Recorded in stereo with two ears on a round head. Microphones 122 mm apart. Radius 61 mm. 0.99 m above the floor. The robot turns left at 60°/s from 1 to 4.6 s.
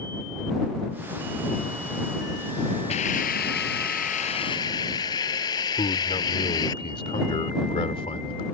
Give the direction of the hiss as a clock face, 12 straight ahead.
8 o'clock.